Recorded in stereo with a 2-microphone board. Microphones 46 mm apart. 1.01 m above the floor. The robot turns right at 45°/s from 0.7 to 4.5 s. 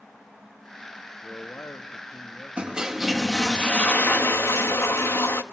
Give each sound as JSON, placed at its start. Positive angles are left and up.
{"t": 1.2, "sound": "a man speaking", "azimuth_deg": 55, "distance_m": 1.5}
{"t": 2.6, "sound": "a toilet flushing", "azimuth_deg": -25, "distance_m": 1.1}